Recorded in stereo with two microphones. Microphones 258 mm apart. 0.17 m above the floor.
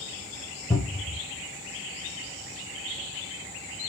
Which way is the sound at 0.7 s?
10° left (ahead or behind).